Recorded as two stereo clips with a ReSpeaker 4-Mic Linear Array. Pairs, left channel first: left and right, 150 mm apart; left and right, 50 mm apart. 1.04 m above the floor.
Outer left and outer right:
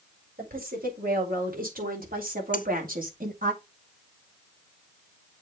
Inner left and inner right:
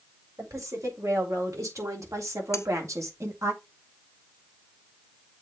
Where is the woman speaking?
80° right, 5.5 m; by 3.5 s 65° right (ahead or behind), 2 m.